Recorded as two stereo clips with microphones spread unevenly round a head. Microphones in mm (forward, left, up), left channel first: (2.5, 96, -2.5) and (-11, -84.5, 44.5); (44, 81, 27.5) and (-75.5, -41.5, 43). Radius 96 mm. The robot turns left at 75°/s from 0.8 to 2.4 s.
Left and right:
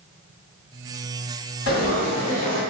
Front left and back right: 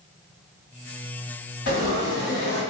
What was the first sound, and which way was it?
Frying, 55° left.